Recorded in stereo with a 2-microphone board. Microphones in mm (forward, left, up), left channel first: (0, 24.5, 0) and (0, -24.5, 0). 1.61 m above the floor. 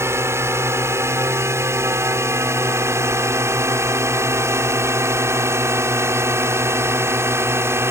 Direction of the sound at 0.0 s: 65° right (ahead or behind).